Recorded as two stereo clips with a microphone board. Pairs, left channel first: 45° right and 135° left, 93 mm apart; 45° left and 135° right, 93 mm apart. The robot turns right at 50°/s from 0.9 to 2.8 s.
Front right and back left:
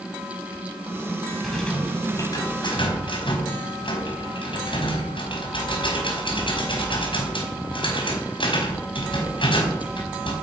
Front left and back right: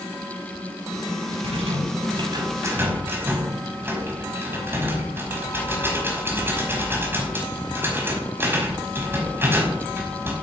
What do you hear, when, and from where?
1.4 s a rattle: 135° right, 5 m; by 10.3 s 70° right, 5 m